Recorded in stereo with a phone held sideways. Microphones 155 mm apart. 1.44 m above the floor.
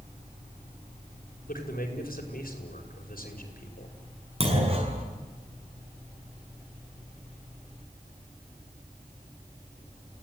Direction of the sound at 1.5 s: 70° left (ahead or behind).